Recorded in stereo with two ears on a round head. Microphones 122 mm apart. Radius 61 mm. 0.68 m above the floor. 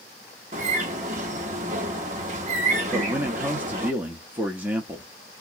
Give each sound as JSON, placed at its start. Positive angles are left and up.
{"t": 0.5, "sound": "a bird", "side_deg": -55, "distance_m": 1.1}
{"t": 2.9, "sound": "a man speaking", "side_deg": -10, "distance_m": 0.7}